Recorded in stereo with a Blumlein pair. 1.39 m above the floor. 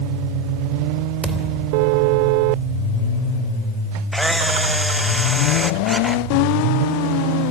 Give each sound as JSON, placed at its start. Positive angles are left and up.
{"t": 1.2, "sound": "a thud", "azimuth_deg": -5, "distance_m": 3.0}
{"t": 4.1, "sound": "a camera shutter", "azimuth_deg": -5, "distance_m": 1.0}